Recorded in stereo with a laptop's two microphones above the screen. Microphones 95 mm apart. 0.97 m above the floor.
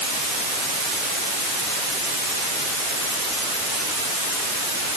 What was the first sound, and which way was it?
Only background noise.